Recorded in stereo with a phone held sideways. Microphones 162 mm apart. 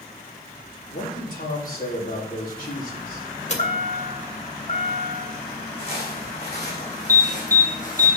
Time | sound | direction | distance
0.9 | a man speaking | 60° left (ahead or behind) | 4 m
3.5 | a chime | 45° left (ahead or behind) | 1.9 m
5.8 | footsteps | 35° left (ahead or behind) | 4 m
7.1 | an alarm | 15° right (ahead or behind) | 1.8 m